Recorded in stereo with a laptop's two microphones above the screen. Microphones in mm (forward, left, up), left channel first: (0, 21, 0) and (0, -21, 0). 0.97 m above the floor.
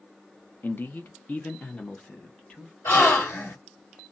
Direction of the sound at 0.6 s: 50° left (ahead or behind).